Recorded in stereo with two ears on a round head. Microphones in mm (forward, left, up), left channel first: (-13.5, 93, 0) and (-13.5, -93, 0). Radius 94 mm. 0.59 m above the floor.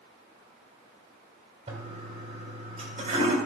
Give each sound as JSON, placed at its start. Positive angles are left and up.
{"t": 1.7, "sound": "a toilet flushing", "side_deg": -35, "distance_m": 2.5}